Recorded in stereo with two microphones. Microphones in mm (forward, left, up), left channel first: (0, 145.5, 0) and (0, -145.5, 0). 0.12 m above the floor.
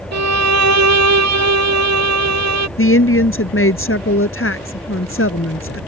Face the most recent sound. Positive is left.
turn(degrees=45)  # may be behind; listen again after turning